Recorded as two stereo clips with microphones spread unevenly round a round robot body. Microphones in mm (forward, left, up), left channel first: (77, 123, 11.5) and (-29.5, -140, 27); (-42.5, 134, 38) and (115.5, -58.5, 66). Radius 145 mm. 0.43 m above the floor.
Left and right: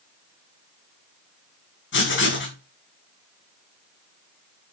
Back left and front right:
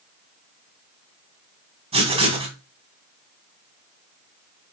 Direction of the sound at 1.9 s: 20° left.